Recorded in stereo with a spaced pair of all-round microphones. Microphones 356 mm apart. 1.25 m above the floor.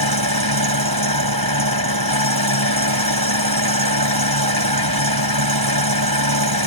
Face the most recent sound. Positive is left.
turn(degrees=-85)